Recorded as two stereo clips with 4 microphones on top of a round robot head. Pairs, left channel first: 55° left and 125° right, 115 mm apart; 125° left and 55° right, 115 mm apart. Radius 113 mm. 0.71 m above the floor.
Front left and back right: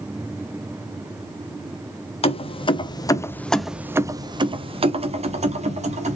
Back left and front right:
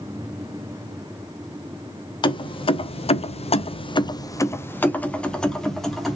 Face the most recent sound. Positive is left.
turn(degrees=-145)